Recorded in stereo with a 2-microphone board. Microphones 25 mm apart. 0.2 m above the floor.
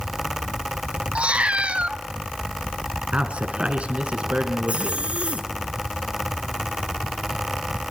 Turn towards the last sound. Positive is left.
turn(degrees=-55)  # may be behind; listen again after turning